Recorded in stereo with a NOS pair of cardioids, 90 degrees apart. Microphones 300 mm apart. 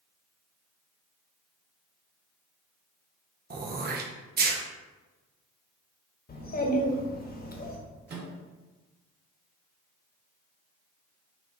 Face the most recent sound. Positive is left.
turn(degrees=-35)